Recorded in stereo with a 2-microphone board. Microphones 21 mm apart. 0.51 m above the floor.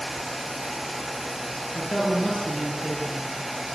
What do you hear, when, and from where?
1.8 s a woman speaking: 70° left (ahead or behind), 8 m